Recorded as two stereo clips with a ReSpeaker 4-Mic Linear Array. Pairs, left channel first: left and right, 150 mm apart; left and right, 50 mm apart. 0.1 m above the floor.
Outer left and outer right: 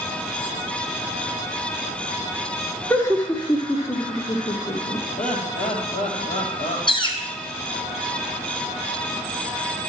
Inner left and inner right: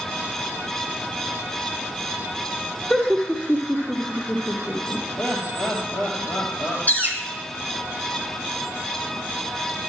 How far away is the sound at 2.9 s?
About 1.7 m.